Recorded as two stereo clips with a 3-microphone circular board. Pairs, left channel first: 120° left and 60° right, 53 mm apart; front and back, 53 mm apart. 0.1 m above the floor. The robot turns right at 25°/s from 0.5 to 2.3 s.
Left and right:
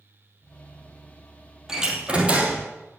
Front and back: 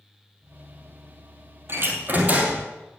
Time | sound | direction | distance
1.7 | a door slam | 140° right | 3 m